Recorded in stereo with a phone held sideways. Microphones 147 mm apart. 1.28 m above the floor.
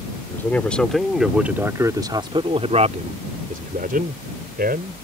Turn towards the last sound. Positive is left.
turn(degrees=-80)